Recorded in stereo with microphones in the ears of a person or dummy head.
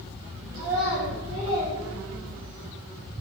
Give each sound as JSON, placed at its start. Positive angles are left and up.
{"t": 0.5, "sound": "a child speaking", "side_deg": -25, "distance_m": 3.0}